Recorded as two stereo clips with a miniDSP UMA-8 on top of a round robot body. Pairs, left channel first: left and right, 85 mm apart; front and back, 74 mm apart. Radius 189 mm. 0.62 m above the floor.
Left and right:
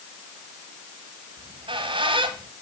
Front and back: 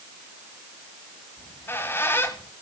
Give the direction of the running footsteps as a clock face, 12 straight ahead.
I don't hear running footsteps.